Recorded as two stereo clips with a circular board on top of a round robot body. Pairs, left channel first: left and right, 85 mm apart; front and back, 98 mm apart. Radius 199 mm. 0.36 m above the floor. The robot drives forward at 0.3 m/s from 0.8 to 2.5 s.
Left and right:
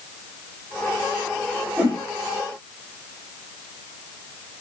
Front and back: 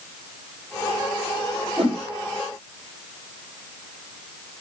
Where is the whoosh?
160° right, 2.5 m.